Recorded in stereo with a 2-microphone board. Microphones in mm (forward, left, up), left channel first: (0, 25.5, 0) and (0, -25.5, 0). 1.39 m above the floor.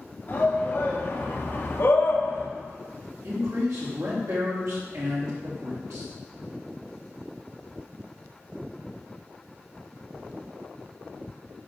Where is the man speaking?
75° right (ahead or behind), 3.5 m.